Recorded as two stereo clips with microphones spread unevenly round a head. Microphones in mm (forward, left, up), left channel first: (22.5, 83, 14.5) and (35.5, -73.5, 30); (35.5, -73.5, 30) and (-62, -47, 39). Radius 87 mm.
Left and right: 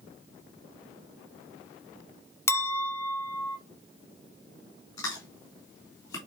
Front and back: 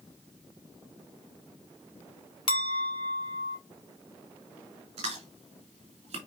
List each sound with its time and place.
2.5 s a clink: 25° left, 0.8 m
5.0 s chewing: 165° left, 3 m